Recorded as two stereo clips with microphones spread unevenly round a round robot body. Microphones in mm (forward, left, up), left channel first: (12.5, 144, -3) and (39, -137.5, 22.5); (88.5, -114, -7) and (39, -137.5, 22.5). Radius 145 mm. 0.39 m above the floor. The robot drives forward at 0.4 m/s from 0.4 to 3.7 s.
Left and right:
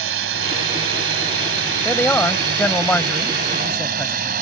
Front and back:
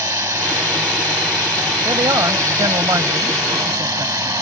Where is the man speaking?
Straight behind.